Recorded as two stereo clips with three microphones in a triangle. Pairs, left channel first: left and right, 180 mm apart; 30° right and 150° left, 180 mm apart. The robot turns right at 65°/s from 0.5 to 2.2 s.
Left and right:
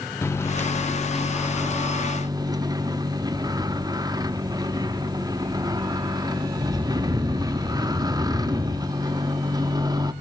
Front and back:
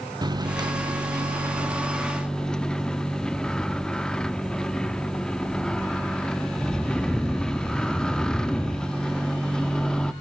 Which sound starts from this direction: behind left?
A microwave, at 0.2 s.